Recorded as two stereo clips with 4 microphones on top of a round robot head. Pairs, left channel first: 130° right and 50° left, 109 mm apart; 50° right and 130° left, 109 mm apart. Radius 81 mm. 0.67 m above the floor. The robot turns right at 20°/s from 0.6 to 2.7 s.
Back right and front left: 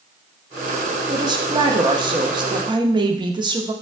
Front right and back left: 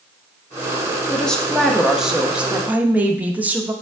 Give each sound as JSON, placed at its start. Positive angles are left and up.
{"t": 1.1, "sound": "a woman speaking", "azimuth_deg": 30, "distance_m": 0.7}